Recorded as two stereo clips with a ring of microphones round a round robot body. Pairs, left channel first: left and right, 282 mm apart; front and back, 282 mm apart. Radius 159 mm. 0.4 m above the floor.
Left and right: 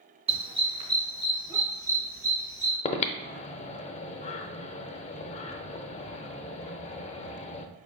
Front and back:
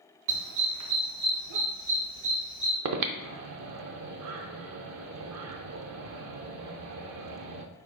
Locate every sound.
0.3 s a dog barking: 160° right, 0.9 m; by 2.8 s 170° right, 2.5 m
2.9 s breathing: 155° left, 0.5 m